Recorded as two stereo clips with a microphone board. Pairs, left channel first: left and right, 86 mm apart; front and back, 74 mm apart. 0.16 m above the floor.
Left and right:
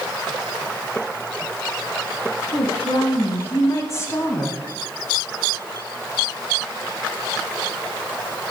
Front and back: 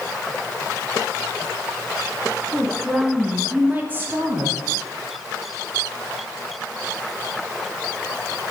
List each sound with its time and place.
2.5 s a woman speaking: 80° left, 2 m; by 4.6 s 155° left, 1.8 m